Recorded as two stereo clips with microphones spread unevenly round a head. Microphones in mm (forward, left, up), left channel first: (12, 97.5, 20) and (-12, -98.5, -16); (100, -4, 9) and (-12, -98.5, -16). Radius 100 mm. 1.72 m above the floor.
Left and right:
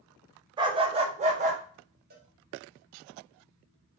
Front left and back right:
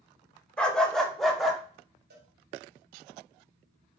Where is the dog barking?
25° right, 1.7 m; by 1.6 s 45° right, 2 m.